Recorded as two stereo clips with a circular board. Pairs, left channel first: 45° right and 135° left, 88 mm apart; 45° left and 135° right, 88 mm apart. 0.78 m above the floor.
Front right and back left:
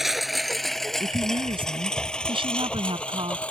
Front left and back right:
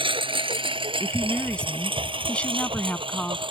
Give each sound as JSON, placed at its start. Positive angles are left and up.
{"t": 0.0, "sound": "a lawn mower", "azimuth_deg": -135}
{"t": 1.0, "sound": "a woman speaking", "azimuth_deg": 120}